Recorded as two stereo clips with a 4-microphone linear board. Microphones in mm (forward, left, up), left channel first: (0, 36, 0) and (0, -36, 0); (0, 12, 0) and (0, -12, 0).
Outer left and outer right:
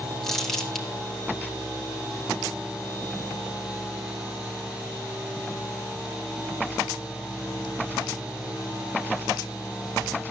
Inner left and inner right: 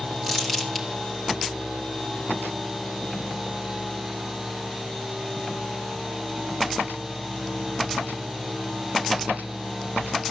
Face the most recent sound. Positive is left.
turn(degrees=5)  # may be behind; listen again after turning